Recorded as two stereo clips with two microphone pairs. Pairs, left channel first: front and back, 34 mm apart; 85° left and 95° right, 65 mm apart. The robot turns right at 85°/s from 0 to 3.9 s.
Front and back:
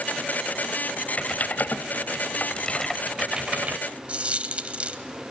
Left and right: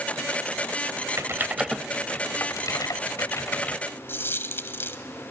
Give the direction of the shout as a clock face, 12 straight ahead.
No shout in this recording.